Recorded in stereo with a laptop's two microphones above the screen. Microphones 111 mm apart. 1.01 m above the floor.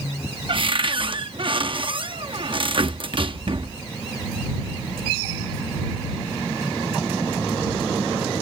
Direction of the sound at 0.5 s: 50° right (ahead or behind).